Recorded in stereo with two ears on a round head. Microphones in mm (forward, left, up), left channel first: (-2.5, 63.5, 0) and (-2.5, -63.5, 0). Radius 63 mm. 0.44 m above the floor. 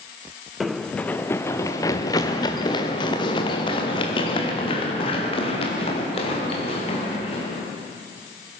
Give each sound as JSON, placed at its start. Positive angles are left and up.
{"t": 0.6, "sound": "running footsteps", "side_deg": 0, "distance_m": 1.1}